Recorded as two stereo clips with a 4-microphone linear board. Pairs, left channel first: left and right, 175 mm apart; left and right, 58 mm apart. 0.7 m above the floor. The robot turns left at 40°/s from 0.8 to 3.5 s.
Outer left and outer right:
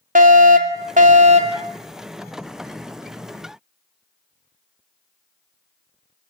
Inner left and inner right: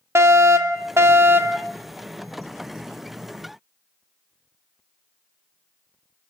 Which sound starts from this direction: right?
A fire alarm, at 0.1 s.